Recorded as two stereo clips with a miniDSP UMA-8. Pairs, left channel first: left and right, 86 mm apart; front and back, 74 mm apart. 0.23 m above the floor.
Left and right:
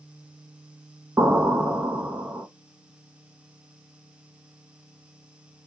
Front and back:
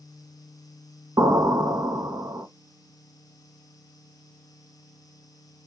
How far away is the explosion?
About 0.6 m.